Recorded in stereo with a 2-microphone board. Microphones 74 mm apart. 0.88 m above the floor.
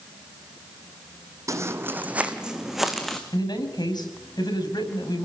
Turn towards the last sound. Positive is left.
turn(degrees=75)  # may be behind; listen again after turning